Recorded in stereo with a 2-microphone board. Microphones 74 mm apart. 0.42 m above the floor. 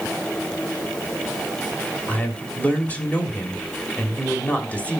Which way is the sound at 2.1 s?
20° left (ahead or behind).